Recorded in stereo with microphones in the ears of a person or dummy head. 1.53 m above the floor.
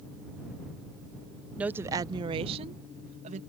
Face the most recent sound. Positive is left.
turn(degrees=-45)  # may be behind; listen again after turning